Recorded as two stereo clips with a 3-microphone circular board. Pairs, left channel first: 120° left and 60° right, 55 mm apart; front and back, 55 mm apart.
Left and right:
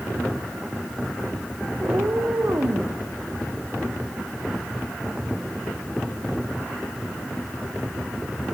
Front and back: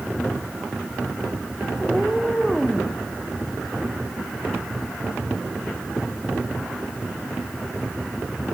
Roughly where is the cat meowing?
Right.